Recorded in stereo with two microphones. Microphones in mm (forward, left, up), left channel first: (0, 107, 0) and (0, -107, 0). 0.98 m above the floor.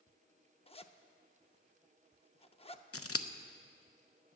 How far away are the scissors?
About 0.7 m.